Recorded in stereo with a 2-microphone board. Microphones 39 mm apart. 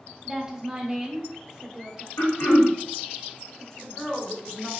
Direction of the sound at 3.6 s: 15° left (ahead or behind).